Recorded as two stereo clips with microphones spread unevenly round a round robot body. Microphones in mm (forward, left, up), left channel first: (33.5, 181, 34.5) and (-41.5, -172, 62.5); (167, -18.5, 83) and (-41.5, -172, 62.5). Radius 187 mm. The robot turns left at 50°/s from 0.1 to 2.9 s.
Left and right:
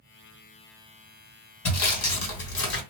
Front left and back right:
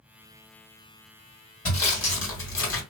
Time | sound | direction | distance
1.6 | sawing | 90° left | 1.5 m